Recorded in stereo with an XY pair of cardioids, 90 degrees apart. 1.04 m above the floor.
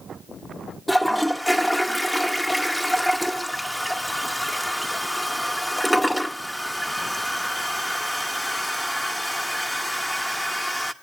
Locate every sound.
0.9 s a toilet flushing: 10° left, 1.0 m